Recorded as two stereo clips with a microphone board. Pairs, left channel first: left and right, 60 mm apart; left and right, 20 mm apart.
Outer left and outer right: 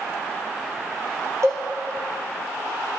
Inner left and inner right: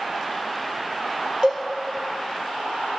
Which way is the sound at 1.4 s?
55° right (ahead or behind).